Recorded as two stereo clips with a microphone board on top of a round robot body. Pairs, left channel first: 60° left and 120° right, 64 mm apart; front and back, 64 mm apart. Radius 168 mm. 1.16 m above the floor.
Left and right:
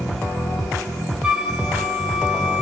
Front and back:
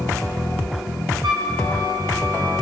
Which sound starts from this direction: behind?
A flute, at 1.2 s.